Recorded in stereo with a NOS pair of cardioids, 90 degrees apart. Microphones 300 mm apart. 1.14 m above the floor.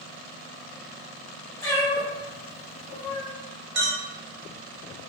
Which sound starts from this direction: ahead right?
A clink, at 3.8 s.